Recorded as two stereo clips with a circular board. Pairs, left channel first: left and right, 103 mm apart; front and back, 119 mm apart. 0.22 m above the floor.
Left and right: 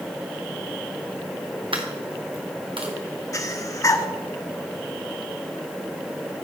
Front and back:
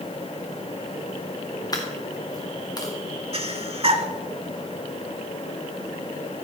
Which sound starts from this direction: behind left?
Breathing, at 3.3 s.